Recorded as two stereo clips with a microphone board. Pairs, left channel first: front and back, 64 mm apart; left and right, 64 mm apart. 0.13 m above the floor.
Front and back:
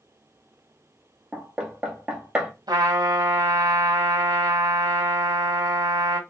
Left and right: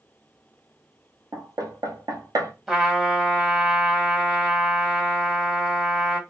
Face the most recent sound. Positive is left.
turn(degrees=-175)